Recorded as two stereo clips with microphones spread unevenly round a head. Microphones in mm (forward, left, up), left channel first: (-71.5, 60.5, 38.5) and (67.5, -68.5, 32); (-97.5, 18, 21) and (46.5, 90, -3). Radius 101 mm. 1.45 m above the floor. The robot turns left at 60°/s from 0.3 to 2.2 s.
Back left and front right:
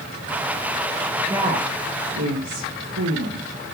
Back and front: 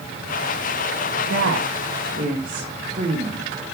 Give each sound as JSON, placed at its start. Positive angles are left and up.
{"t": 1.3, "sound": "a woman speaking", "azimuth_deg": 35, "distance_m": 1.9}